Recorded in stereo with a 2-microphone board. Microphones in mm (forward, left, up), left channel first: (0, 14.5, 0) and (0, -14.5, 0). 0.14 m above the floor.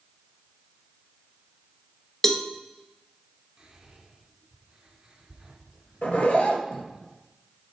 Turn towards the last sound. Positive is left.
turn(degrees=45)  # may be behind; listen again after turning